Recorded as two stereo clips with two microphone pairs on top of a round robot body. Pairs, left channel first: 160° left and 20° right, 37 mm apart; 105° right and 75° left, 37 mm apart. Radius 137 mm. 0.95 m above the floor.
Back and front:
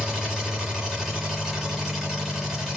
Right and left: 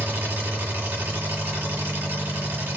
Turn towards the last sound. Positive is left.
turn(degrees=75)